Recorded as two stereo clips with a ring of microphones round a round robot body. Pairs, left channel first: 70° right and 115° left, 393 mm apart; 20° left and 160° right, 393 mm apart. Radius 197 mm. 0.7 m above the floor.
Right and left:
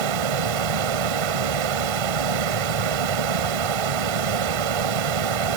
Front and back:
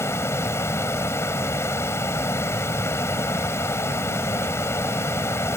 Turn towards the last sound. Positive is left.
turn(degrees=105)